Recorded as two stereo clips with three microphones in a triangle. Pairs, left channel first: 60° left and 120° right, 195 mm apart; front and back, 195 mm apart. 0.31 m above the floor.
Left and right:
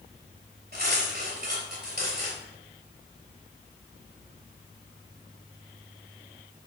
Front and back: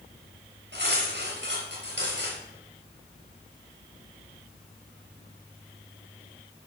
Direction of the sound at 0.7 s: 155° right.